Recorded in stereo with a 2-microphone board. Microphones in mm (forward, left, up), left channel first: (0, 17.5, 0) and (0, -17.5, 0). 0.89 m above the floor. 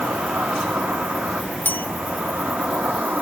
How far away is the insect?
About 1.0 m.